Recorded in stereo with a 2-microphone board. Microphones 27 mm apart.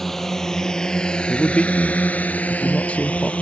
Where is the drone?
15° left (ahead or behind); by 3.4 s 50° left (ahead or behind).